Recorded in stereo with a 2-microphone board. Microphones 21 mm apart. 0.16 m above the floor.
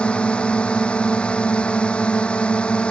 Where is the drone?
55° left (ahead or behind).